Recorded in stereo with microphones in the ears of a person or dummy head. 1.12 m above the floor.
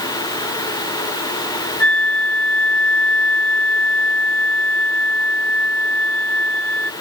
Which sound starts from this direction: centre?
A flute, at 1.8 s.